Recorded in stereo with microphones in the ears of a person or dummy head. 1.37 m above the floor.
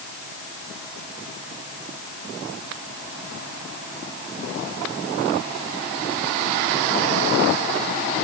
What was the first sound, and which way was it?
Only background noise.